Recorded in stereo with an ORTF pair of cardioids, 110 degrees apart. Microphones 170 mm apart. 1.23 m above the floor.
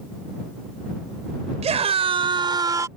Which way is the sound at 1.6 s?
40° right.